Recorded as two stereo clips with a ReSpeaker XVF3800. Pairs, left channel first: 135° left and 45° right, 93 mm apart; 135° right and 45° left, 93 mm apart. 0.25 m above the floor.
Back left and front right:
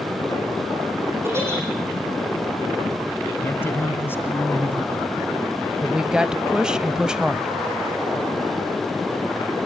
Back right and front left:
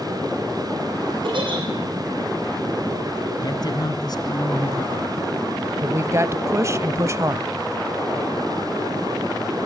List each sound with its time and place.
1.2 s a giggle: 20° left, 9 m
3.4 s a man speaking: 165° right, 2.5 m
5.8 s a woman speaking: 30° left, 1.2 m